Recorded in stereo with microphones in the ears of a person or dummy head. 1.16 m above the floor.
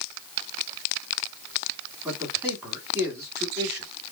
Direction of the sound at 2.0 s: 15° right (ahead or behind).